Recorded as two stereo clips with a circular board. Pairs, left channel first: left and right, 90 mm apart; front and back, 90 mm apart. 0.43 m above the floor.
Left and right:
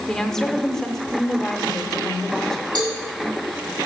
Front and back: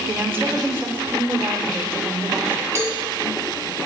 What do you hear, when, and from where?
0.1 s a woman speaking: 165° left, 0.8 m
2.8 s a cowbell: 120° right, 2 m